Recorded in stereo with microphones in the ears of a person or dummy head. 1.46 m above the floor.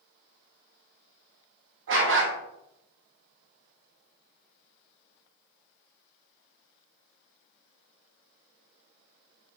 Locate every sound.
1.9 s a dog barking: 70° right (ahead or behind), 3 m